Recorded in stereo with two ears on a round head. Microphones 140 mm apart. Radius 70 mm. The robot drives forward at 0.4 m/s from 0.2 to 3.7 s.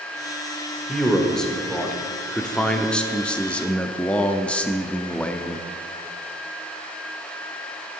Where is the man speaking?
5° left (ahead or behind), 1.6 m; by 5.7 s 10° left (ahead or behind), 0.8 m.